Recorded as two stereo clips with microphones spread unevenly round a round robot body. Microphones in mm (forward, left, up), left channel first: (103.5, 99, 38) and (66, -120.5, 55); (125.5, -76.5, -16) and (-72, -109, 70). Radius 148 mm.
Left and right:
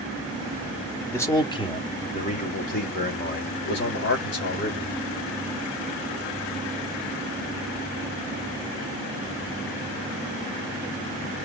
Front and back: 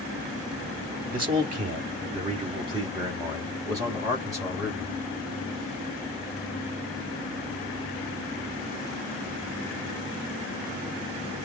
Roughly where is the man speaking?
Behind left.